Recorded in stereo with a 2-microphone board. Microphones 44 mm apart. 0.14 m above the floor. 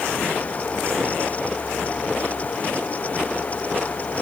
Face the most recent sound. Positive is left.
No sound to turn to.